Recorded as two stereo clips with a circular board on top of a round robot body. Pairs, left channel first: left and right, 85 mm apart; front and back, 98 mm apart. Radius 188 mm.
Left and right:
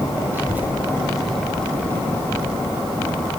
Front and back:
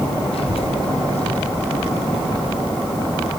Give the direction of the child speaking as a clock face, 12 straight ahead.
1 o'clock.